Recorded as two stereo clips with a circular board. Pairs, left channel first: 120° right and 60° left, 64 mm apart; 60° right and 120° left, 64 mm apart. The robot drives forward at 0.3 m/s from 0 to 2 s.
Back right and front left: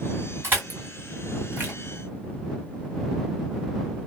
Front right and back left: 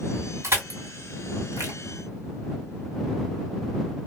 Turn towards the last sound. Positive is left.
turn(degrees=120)